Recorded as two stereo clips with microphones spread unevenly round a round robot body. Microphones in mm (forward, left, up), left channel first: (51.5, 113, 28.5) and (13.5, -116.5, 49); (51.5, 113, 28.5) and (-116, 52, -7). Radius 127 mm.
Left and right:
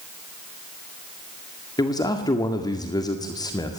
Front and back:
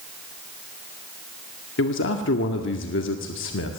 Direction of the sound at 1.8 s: 10° left.